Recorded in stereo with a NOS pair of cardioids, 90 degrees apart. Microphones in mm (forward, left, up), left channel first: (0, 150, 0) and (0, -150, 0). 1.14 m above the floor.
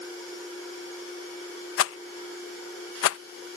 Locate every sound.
1.8 s a rattle: 50° left